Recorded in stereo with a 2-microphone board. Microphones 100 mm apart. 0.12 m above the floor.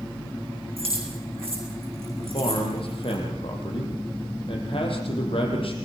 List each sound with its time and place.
0.8 s keys jangling: 75° right (ahead or behind), 6 m
2.2 s a man speaking: 65° left (ahead or behind), 5.5 m